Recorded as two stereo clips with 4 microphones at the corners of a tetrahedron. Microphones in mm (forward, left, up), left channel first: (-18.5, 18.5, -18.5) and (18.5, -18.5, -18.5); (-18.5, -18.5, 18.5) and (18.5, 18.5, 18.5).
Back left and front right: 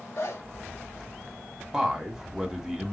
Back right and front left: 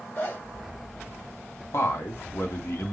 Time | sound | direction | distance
0.2 | a zipper | 175° left | 2.5 m
1.7 | a man speaking | 125° right | 1.8 m